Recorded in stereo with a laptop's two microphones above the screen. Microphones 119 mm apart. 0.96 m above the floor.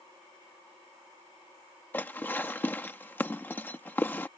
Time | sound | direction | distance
1.9 | dishes clattering | 15° left (ahead or behind) | ?